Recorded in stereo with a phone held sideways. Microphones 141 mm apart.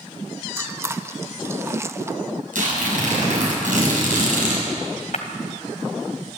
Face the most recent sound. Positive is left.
turn(degrees=65)  # may be behind; listen again after turning